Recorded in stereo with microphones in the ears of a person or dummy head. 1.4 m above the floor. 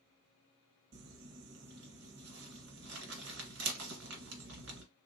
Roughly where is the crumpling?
Right.